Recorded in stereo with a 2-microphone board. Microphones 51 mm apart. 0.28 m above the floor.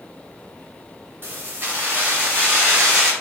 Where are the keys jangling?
40° right (ahead or behind), 2 m; by 3.1 s 20° right (ahead or behind), 2.5 m.